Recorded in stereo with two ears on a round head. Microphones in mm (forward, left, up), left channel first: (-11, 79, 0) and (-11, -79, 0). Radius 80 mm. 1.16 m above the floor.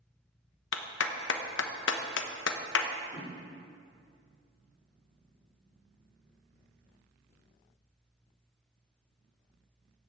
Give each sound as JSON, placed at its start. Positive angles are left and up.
{"t": 0.7, "sound": "a clap", "side_deg": 75, "distance_m": 1.0}
{"t": 3.1, "sound": "a whoosh", "side_deg": 35, "distance_m": 3.0}